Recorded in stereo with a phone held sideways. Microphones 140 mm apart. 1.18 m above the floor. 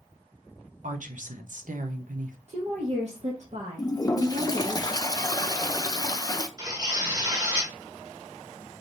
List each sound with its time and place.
0.8 s a woman speaking: 65° right (ahead or behind), 0.9 m
2.5 s a woman speaking: 55° right (ahead or behind), 1.2 m
3.8 s a toilet flushing: 25° left (ahead or behind), 0.5 m
6.6 s tearing paper: 30° right (ahead or behind), 1.7 m